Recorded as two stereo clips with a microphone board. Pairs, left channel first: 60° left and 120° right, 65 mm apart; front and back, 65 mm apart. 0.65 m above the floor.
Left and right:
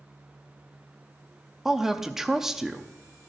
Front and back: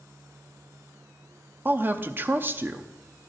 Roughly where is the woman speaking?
Behind.